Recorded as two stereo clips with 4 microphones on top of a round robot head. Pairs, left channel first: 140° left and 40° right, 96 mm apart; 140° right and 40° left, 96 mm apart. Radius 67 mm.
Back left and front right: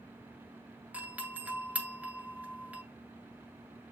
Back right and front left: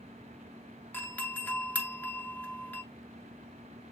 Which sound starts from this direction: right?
A doorbell, at 0.9 s.